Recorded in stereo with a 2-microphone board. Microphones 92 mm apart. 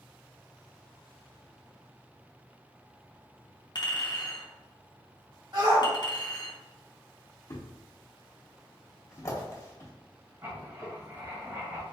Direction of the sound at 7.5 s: 30° left (ahead or behind).